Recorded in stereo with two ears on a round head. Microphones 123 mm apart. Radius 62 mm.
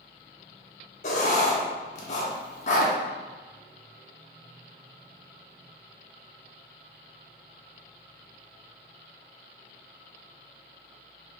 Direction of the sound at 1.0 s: 50° left (ahead or behind).